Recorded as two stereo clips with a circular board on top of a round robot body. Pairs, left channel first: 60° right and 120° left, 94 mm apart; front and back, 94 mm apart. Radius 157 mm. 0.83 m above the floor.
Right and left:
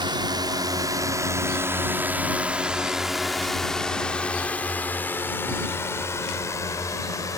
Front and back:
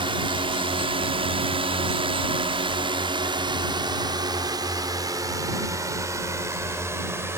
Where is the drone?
155° left; by 7.4 s 115° right.